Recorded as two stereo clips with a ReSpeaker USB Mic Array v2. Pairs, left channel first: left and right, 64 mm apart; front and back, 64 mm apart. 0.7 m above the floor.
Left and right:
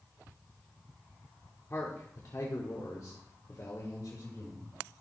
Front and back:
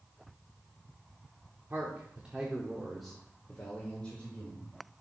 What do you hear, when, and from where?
1.7 s a man speaking: 130° left, 1.7 m; by 4.8 s 65° left, 3 m